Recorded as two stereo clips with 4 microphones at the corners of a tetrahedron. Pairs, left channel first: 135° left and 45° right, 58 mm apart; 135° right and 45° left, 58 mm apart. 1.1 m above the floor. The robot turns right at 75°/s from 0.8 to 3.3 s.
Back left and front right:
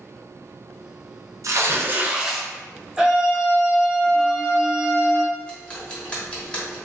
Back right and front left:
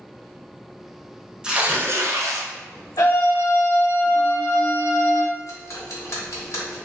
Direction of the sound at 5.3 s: 155° right.